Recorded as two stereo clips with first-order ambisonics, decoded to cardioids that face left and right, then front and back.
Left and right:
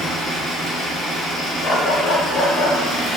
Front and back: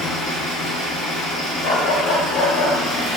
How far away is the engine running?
About 0.9 m.